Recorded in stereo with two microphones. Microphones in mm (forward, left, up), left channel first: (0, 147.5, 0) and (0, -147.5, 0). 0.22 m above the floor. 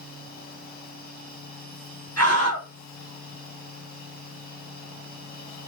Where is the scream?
60° left (ahead or behind), 2.5 m.